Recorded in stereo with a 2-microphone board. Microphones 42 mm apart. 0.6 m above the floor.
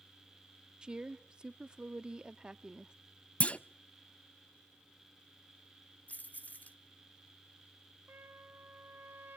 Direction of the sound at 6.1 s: 40° left (ahead or behind).